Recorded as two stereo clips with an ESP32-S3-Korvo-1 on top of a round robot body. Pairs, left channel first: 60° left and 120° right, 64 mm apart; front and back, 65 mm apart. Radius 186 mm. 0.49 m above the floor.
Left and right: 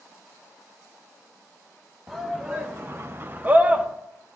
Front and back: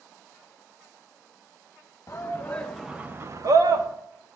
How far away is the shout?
About 1.3 m.